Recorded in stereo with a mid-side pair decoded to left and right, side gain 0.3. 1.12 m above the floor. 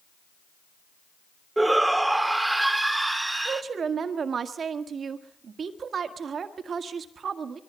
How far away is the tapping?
I don't hear tapping.